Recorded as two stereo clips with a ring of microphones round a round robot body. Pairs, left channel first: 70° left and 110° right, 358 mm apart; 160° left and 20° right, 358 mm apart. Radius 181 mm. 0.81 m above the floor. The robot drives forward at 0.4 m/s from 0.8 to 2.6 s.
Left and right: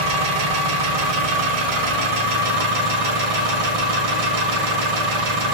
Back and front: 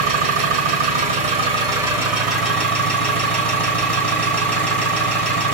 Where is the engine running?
90° right, 1.4 m; by 5.5 s 115° right, 1.6 m.